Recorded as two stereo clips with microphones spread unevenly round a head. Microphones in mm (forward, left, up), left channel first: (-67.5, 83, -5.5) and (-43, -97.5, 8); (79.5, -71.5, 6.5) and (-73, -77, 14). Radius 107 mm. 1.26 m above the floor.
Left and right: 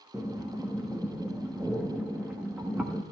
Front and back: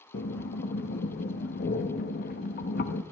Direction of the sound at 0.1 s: Straight ahead.